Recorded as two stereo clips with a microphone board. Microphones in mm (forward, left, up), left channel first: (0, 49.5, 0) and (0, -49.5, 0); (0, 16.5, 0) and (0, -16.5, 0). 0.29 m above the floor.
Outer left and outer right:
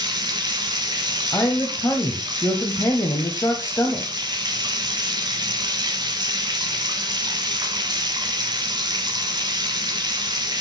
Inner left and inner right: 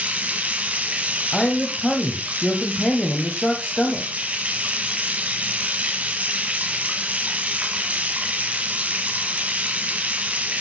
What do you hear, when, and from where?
0.0 s running water: 40° right (ahead or behind), 1.6 m
1.3 s a man speaking: 30° left (ahead or behind), 1.3 m